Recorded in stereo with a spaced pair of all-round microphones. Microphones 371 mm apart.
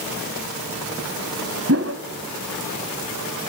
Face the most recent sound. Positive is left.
turn(degrees=-40)  # may be behind; listen again after turning